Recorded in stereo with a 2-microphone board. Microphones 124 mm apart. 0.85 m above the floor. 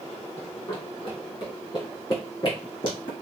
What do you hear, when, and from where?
0.4 s running footsteps: 35° left (ahead or behind), 1.7 m; by 3.1 s 45° left (ahead or behind), 3 m